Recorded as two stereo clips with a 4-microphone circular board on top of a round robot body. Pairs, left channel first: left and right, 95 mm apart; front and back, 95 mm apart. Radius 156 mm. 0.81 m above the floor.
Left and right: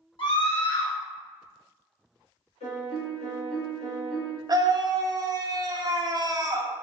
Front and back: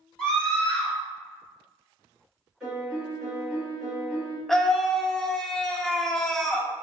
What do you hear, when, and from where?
0.2 s a scream: 80° left, 1.9 m
2.6 s a piano: 95° left, 1.8 m
4.5 s a scream: 85° right, 0.9 m